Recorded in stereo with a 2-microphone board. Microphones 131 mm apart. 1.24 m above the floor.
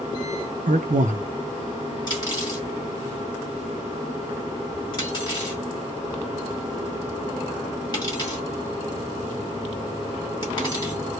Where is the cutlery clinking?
35° left (ahead or behind), 1.3 m.